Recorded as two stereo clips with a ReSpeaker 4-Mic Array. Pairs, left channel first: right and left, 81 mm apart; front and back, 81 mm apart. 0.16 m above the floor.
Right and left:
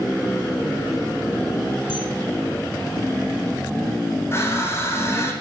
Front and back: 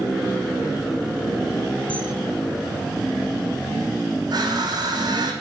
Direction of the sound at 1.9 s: 75° right.